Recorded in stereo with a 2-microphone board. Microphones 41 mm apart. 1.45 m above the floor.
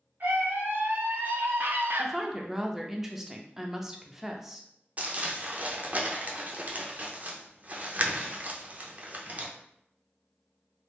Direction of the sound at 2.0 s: 10° right (ahead or behind).